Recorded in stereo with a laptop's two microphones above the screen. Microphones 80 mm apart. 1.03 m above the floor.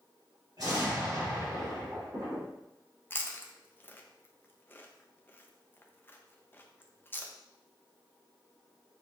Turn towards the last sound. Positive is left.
turn(degrees=25)  # may be behind; listen again after turning